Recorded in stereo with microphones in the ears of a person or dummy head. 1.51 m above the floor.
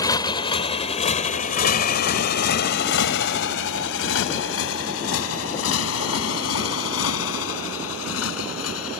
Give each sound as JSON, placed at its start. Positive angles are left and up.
{"t": 0.0, "sound": "a motorcycle", "side_deg": 20}